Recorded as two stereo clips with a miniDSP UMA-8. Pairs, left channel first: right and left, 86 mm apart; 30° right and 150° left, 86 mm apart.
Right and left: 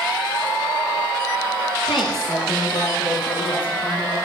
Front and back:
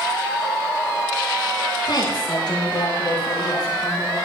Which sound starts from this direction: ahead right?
A woman speaking, at 1.9 s.